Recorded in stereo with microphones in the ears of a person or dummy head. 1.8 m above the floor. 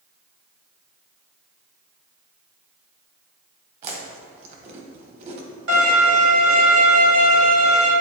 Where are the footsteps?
I don't hear footsteps.